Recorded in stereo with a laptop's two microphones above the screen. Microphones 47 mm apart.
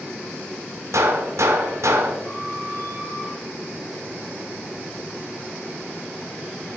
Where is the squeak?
70° left (ahead or behind), 4.5 m.